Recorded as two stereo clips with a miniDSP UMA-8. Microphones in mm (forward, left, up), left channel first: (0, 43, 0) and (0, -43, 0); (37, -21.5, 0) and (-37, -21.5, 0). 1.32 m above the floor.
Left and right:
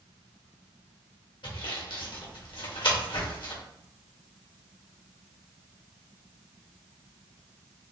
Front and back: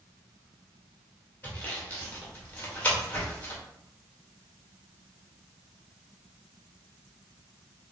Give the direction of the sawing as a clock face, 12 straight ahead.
10 o'clock.